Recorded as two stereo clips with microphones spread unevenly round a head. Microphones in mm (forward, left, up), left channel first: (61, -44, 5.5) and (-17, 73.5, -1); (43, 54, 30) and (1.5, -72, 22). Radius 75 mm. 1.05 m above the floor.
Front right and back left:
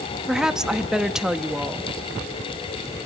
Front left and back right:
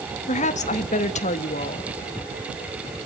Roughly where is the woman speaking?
Ahead left.